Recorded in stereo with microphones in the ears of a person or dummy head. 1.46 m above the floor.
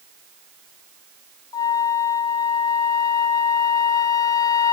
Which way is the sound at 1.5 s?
25° left (ahead or behind).